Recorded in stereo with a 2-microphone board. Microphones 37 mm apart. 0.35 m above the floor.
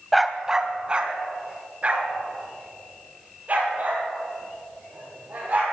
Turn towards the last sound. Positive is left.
turn(degrees=-40)  # may be behind; listen again after turning